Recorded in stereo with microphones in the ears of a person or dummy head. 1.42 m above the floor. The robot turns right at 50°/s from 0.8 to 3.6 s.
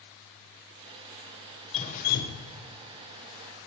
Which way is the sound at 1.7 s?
35° left.